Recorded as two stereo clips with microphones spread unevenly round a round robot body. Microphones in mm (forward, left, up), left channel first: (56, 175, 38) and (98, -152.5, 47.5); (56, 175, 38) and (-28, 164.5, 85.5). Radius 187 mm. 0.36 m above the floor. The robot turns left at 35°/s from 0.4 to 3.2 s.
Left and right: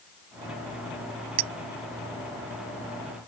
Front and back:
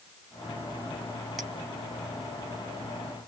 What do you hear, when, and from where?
1.4 s a clink: 75° right; by 1.5 s 80° right